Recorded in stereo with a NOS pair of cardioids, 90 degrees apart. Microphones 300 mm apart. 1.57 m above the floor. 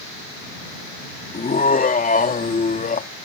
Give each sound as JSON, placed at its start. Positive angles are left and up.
{"t": 1.3, "sound": "laughter", "azimuth_deg": 30}